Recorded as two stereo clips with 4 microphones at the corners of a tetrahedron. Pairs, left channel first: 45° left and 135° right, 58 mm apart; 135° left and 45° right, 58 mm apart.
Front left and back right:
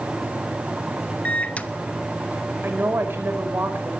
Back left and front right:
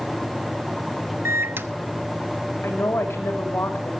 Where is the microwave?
15° right, 1.1 m.